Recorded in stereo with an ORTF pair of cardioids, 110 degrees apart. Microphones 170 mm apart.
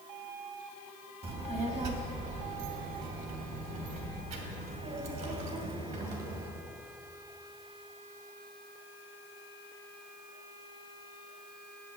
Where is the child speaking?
35° right, 1.5 m; by 6.5 s 70° right, 4 m.